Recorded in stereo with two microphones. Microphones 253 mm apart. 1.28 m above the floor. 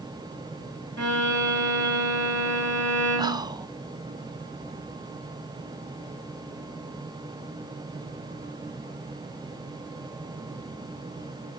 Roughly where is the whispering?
Centre.